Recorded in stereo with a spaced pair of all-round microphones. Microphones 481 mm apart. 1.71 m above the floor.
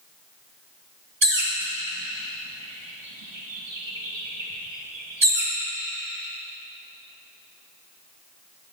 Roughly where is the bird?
Right.